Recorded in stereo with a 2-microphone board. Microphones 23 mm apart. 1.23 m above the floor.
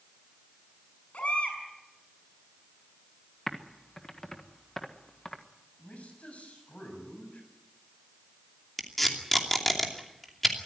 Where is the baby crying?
65° left (ahead or behind), 6 m.